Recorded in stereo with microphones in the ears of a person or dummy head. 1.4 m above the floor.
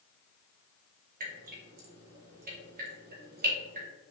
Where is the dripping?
45° right (ahead or behind), 1.0 m.